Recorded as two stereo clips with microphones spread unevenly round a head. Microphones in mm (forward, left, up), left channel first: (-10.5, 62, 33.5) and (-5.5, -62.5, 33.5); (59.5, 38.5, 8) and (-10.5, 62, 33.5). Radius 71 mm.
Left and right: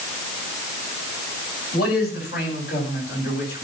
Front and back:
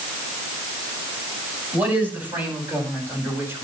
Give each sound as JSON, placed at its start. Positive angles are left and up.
{"t": 1.7, "sound": "a man speaking", "azimuth_deg": 90, "distance_m": 10.0}